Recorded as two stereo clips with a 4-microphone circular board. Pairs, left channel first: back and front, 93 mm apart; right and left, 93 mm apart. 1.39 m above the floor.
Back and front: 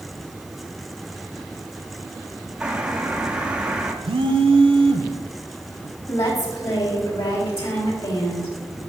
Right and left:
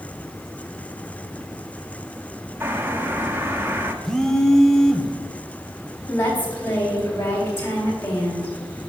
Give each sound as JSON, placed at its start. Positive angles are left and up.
{"t": 2.6, "sound": "a bird", "azimuth_deg": 65, "distance_m": 0.9}
{"t": 4.0, "sound": "a phone buzzing", "azimuth_deg": -5, "distance_m": 0.7}
{"t": 6.1, "sound": "a woman speaking", "azimuth_deg": -155, "distance_m": 3.5}